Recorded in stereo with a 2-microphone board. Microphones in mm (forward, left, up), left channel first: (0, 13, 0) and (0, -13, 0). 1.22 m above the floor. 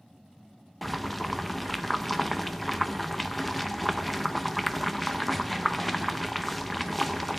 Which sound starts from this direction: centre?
Boiling, at 0.8 s.